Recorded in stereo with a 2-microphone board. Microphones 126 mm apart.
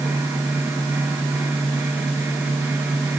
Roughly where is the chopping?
I don't hear chopping.